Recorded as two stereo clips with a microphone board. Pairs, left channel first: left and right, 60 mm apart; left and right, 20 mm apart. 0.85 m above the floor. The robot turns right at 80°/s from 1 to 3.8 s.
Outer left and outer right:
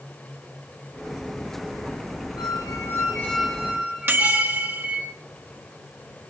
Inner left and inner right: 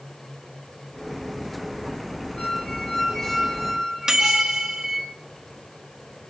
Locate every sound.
2.4 s a squeak: 85° left, 4 m; by 5.1 s 160° right, 4 m
4.1 s a microwave: 40° right (ahead or behind), 1.9 m